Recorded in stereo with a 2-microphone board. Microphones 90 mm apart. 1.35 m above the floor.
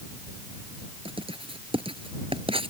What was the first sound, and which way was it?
Writing, 80° right.